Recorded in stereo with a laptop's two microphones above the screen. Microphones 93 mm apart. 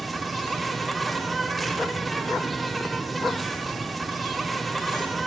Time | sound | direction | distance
0.0 | an insect | centre (ahead or behind) | 1.2 m